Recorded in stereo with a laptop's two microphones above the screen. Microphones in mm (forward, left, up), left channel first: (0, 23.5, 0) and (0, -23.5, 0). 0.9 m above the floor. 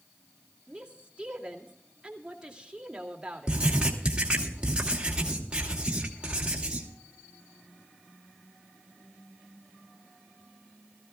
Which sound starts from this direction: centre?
A woman speaking, at 0.7 s.